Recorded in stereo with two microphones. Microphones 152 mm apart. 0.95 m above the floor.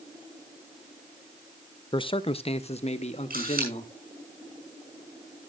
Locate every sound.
1.9 s a man speaking: 30° left (ahead or behind), 0.5 m; by 3.9 s 50° left (ahead or behind), 1.7 m
3.3 s a camera shutter: 80° right, 6.5 m